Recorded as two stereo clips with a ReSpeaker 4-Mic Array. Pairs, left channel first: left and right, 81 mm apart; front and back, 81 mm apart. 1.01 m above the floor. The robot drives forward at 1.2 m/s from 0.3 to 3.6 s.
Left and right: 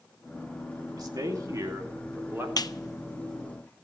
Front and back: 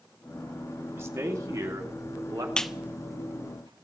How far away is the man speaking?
About 2.5 m.